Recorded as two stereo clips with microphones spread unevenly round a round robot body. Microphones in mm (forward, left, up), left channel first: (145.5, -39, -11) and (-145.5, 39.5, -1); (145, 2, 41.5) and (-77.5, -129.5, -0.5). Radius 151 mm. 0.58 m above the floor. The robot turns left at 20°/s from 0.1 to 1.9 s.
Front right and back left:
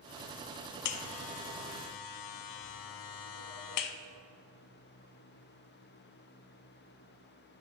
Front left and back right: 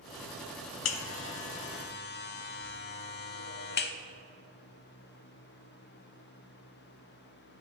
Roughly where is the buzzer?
Ahead.